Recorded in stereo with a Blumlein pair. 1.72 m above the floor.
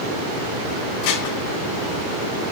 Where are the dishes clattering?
45° left, 2 m.